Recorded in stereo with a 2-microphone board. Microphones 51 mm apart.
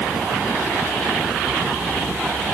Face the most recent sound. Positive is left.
No sound to turn to.